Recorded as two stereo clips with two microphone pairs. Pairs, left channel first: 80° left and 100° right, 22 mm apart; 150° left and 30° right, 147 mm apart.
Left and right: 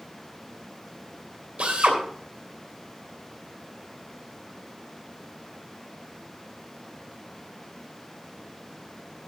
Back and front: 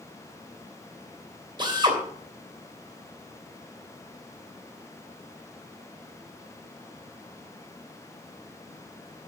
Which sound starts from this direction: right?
A drill, at 1.6 s.